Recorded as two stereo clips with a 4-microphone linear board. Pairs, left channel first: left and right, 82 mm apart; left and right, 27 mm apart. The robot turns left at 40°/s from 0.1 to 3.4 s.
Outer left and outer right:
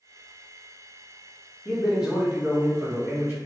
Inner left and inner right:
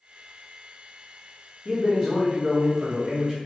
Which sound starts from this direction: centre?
A man speaking, at 1.6 s.